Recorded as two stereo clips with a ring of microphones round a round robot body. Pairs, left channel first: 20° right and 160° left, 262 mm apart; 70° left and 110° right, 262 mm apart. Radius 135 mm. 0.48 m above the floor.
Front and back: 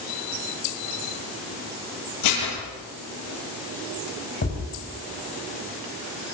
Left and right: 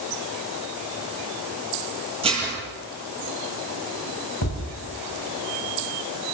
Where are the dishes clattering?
45° right, 9.5 m.